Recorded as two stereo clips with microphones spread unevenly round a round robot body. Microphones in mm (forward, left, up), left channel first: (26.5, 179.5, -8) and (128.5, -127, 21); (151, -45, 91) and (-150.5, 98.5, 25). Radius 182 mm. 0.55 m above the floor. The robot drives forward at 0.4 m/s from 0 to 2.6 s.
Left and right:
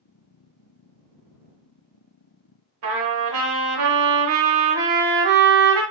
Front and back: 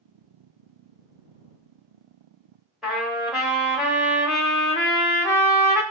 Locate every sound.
2.8 s a trumpet: 115° right, 0.6 m